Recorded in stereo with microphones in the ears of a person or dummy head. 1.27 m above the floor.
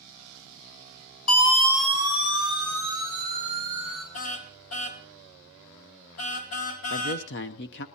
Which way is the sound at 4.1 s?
75° left (ahead or behind).